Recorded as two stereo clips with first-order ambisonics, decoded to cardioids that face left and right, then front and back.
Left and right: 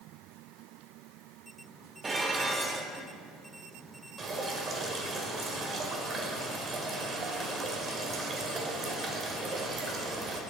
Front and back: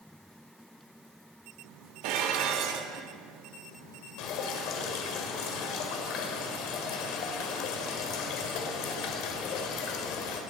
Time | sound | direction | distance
2.0 | dishes clattering | 165° right | 0.9 m
4.2 | dripping | 25° right | 1.6 m